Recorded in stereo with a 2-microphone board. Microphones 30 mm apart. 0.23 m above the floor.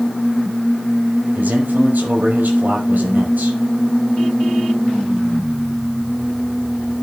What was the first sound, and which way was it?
A man speaking, 75° right (ahead or behind).